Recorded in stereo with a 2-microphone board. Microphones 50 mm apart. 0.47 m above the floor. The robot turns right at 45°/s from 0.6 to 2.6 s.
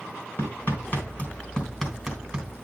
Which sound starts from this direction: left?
Hammering, at 0.4 s.